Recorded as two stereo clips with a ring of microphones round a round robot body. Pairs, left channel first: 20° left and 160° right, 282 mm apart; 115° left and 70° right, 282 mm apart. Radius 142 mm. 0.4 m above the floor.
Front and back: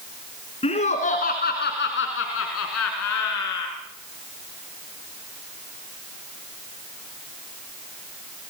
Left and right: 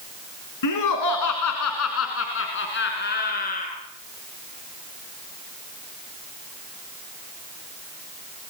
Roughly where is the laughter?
Left.